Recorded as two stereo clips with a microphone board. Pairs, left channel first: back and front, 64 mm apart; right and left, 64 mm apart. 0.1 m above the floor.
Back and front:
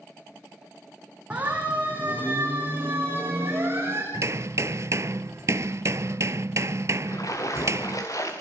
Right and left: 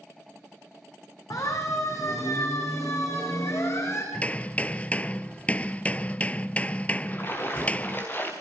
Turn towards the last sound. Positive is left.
turn(degrees=-145)